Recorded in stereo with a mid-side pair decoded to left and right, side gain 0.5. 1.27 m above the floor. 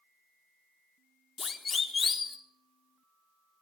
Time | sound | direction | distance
1.4 | a siren | 30° left | 3.5 m